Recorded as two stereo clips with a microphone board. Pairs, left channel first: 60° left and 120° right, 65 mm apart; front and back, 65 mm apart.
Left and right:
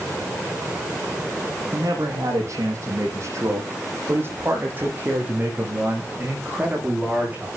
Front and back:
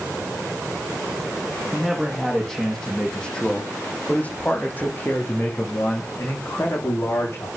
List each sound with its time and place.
1.7 s a man speaking: 90° right, 7.5 m; by 7.5 s 50° right, 11.5 m